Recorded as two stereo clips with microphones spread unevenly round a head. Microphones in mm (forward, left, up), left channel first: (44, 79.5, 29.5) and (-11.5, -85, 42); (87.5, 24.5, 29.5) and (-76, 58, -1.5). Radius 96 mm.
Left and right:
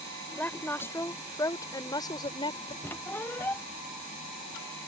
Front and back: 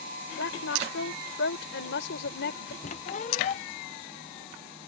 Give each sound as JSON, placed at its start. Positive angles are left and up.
{"t": 0.4, "sound": "a woman speaking", "azimuth_deg": -10}
{"t": 2.8, "sound": "a squeak", "azimuth_deg": -10}